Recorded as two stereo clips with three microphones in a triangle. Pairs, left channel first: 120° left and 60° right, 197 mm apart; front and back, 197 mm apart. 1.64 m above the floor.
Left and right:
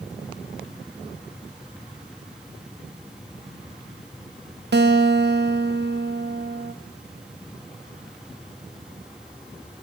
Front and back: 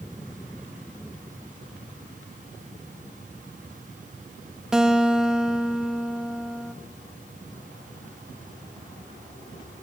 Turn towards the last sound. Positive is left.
turn(degrees=-95)